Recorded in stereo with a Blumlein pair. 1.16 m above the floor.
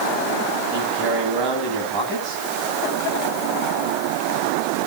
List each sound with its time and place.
0.7 s a man speaking: 30° right, 9 m